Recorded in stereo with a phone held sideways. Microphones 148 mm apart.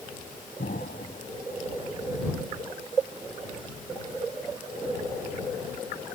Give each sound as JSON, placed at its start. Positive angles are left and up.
{"t": 0.6, "sound": "an explosion", "side_deg": 85}